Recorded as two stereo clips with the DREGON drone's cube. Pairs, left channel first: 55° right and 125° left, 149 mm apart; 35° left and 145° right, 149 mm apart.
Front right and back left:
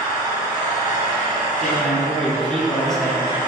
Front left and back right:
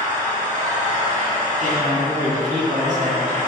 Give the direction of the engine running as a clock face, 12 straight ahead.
6 o'clock.